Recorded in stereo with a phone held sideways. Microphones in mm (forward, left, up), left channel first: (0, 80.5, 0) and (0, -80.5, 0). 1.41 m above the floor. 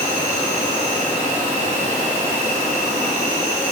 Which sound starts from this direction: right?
An insect, at 0.0 s.